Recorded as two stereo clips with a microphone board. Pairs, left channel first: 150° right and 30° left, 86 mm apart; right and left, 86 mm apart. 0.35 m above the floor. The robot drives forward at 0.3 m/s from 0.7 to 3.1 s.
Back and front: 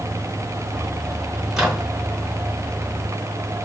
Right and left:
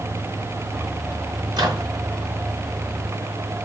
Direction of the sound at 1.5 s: 115° left.